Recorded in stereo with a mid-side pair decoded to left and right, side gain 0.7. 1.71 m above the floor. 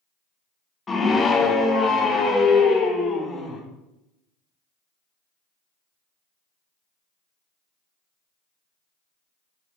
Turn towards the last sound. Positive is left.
turn(degrees=25)